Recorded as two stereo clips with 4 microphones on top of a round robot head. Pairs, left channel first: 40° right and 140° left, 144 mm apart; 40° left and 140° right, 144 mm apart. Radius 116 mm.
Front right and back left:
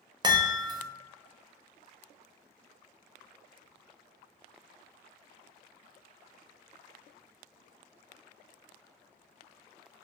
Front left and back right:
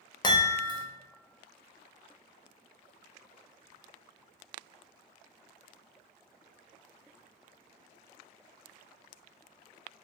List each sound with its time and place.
0.2 s a chime: 90° left, 0.5 m